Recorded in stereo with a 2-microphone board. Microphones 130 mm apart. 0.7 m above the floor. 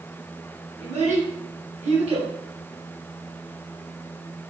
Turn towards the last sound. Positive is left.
turn(degrees=-50)  # may be behind; listen again after turning